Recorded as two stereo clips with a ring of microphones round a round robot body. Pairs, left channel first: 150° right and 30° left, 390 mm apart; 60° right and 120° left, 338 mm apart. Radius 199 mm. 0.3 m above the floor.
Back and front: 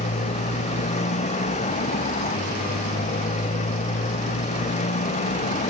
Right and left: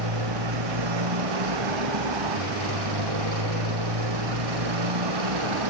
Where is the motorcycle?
135° left.